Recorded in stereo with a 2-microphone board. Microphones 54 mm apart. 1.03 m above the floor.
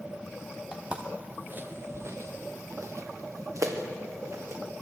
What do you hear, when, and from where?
0.7 s footsteps: 15° right (ahead or behind), 3 m; by 4.6 s 60° right (ahead or behind), 4 m